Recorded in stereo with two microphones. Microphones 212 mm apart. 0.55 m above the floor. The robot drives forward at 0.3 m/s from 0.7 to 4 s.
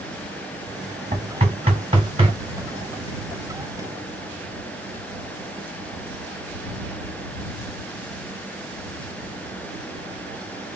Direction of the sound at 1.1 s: 30° right (ahead or behind).